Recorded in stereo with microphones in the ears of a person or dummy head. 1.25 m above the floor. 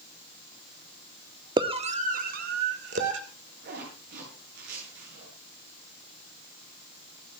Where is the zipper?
60° right (ahead or behind), 9.5 m.